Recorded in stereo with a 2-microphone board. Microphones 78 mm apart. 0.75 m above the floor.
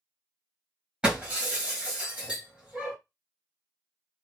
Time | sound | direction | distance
1.0 | breaking glass | 10° right (ahead or behind) | 2.5 m